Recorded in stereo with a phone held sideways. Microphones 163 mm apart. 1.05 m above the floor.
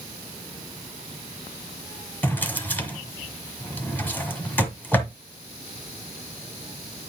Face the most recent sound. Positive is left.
turn(degrees=10)  # may be behind; listen again after turning